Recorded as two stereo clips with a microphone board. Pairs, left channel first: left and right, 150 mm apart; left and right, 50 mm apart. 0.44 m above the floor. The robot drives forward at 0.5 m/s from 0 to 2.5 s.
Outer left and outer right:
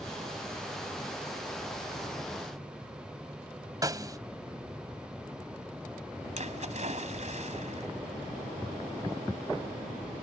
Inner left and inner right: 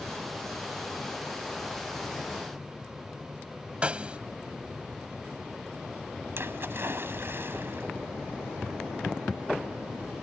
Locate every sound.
3.8 s a snare drum: 25° right (ahead or behind)
6.4 s a splash: 50° right (ahead or behind)